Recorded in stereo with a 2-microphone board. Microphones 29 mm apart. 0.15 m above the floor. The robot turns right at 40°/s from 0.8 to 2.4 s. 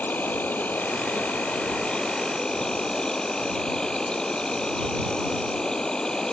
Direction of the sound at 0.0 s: 85° left.